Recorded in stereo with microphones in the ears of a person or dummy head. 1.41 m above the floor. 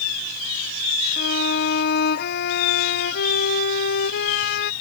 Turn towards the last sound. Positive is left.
turn(degrees=55)  # may be behind; listen again after turning